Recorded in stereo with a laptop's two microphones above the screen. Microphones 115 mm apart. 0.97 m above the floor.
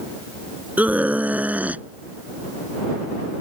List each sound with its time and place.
0.8 s a scream: 10° right (ahead or behind)